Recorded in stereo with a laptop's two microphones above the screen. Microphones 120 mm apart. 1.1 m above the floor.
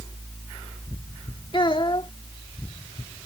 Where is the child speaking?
50° left (ahead or behind).